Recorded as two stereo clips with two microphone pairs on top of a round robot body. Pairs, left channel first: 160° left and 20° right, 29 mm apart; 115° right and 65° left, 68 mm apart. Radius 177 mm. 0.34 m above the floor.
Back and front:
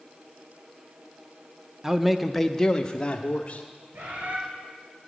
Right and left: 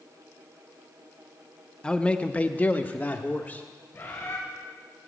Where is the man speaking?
75° right, 0.9 m; by 3.6 s 165° right, 1.3 m.